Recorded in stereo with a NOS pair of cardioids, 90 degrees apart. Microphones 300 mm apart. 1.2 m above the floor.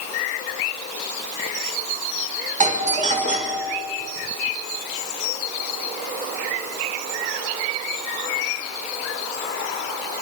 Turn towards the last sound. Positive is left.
turn(degrees=-25)